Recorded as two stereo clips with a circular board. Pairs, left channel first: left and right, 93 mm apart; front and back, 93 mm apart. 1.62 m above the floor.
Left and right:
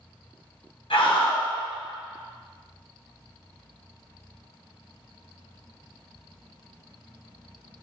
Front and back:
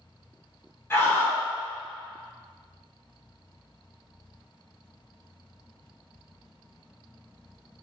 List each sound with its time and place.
0.9 s a scream: 65° left, 1.2 m